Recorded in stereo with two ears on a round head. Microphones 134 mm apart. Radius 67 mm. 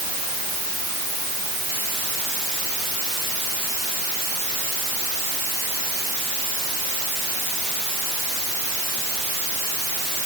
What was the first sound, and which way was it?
Only background noise.